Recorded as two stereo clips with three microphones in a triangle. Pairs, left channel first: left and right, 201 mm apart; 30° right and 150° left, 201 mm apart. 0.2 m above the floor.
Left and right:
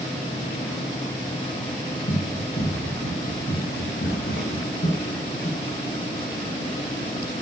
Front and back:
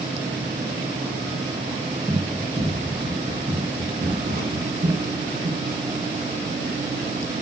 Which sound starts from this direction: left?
Running footsteps, at 2.1 s.